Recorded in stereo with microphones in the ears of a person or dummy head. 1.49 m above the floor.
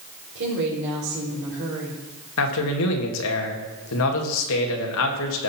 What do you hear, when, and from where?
0.3 s a woman speaking: 65° right (ahead or behind), 4.5 m
2.4 s a man speaking: 75° left (ahead or behind), 2 m